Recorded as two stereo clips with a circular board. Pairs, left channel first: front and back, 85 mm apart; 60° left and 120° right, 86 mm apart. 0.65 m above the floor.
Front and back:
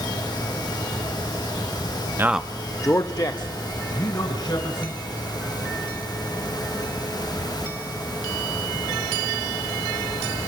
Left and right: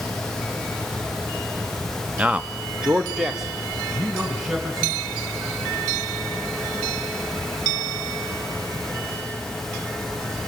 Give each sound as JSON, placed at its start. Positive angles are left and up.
{"t": 2.2, "sound": "a man speaking", "azimuth_deg": 180, "distance_m": 0.5}